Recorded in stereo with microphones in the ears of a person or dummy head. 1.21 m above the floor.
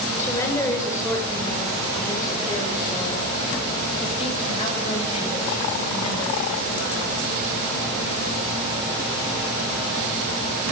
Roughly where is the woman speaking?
Centre.